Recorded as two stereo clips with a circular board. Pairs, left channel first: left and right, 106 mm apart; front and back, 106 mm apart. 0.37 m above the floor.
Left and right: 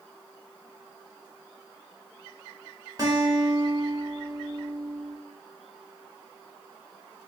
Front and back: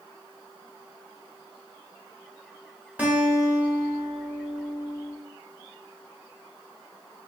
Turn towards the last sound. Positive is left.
turn(degrees=-110)